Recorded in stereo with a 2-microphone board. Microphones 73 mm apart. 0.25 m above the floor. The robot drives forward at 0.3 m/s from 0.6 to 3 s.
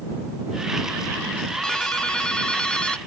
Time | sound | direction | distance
1.6 | a ringtone | 10° left (ahead or behind) | ?